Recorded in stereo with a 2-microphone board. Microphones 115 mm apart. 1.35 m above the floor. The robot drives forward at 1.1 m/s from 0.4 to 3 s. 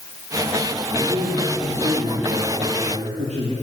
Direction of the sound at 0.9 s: 55° right (ahead or behind).